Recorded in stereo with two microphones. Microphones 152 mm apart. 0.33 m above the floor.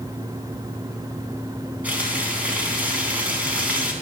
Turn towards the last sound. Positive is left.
turn(degrees=-10)  # may be behind; listen again after turning